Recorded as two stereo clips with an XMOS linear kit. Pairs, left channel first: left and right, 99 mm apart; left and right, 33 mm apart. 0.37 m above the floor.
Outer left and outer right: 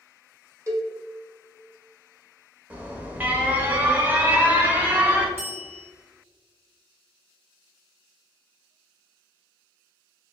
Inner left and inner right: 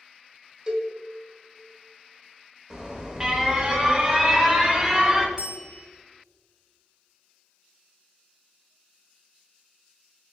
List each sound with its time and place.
0.7 s a cowbell: 30° right (ahead or behind), 0.8 m
2.7 s an alarm: 15° right (ahead or behind), 0.8 m
5.4 s a bell: 25° right (ahead or behind), 1.2 m